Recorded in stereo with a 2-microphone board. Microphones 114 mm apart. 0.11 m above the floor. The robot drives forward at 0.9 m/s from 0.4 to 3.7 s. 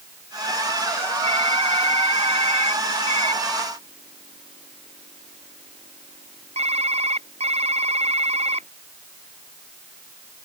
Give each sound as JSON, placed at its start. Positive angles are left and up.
{"t": 1.2, "sound": "typing on a keyboard", "side_deg": -60}